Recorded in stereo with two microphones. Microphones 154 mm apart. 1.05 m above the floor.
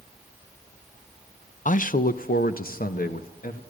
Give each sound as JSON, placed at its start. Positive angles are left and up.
{"t": 1.6, "sound": "a man speaking", "side_deg": 55, "distance_m": 0.6}